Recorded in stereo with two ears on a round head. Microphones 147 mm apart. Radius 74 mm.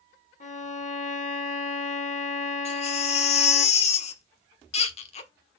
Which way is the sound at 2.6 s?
40° left (ahead or behind).